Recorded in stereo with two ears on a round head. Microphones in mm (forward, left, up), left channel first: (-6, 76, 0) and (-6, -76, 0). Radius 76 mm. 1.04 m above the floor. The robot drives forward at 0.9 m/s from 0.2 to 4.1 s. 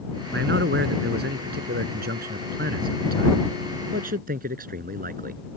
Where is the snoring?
I don't hear snoring.